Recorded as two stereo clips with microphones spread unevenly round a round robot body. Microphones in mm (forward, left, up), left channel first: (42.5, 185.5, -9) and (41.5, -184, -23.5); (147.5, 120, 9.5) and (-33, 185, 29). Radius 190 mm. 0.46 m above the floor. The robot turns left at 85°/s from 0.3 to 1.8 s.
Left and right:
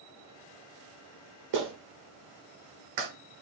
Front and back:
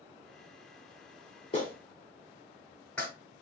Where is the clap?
75° right, 1.4 m; by 3.1 s 100° right, 1.4 m.